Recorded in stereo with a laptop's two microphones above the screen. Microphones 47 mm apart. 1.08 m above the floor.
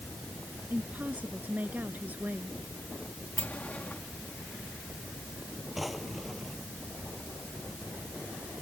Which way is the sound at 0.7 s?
35° right (ahead or behind).